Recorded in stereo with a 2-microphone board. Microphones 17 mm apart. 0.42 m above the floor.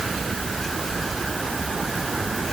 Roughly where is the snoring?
I don't hear snoring.